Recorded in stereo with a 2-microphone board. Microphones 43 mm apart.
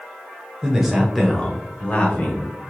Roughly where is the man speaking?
Centre.